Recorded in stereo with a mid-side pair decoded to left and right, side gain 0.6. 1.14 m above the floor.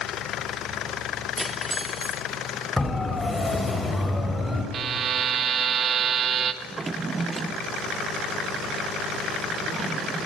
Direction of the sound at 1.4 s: 5° right.